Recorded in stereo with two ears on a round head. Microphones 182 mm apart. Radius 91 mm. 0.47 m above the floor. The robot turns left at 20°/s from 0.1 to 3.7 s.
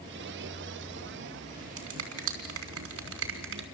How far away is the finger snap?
About 3.5 m.